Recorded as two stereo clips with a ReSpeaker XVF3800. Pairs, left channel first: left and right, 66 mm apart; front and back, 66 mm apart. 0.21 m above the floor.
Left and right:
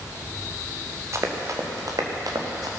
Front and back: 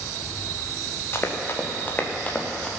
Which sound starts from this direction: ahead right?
Running footsteps, at 1.1 s.